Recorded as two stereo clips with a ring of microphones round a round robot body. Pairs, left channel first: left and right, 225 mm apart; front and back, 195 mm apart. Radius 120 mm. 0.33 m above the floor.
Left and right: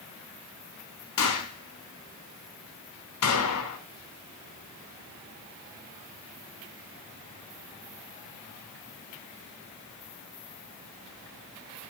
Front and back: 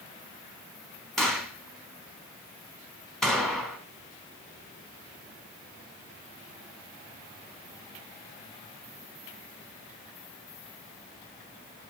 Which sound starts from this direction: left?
A gunshot, at 1.2 s.